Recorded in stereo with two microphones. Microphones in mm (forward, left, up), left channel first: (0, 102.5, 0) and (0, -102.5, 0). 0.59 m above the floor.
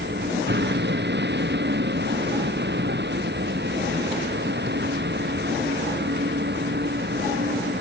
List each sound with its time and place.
0.0 s a vehicle: 55° right (ahead or behind)